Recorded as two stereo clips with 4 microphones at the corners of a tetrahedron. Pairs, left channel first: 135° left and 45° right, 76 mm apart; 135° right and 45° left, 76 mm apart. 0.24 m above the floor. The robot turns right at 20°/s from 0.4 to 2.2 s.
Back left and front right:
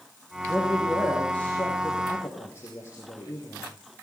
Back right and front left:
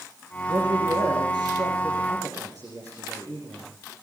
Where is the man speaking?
45° left, 6.5 m; by 3.7 s 80° left, 6.5 m.